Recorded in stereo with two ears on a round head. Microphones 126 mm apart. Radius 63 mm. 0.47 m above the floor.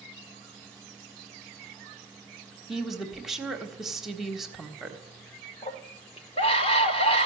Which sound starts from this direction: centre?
A woman speaking, at 2.7 s.